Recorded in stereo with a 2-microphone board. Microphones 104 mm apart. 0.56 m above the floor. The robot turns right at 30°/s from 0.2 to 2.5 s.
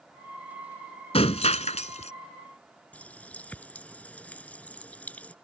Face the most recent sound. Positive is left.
turn(degrees=10)  # may be behind; listen again after turning